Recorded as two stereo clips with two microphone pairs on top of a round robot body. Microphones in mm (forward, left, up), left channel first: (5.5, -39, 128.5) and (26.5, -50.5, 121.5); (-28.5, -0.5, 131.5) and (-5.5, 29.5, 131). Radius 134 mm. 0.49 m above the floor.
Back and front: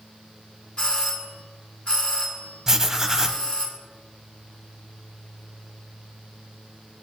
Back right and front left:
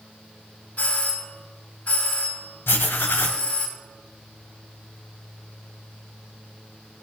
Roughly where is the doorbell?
Behind.